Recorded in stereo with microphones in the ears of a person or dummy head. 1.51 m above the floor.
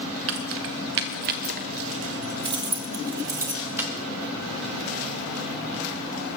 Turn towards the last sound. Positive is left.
turn(degrees=-10)  # may be behind; listen again after turning